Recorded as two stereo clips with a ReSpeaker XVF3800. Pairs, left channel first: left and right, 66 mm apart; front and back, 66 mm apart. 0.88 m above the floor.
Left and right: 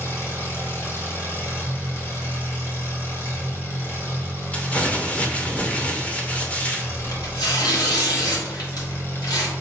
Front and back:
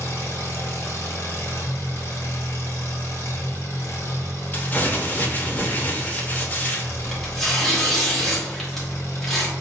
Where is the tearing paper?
90° left, 1.0 m.